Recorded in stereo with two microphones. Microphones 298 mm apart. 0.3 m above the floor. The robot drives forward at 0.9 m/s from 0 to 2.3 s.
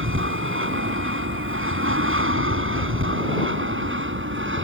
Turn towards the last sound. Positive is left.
turn(degrees=-40)  # may be behind; listen again after turning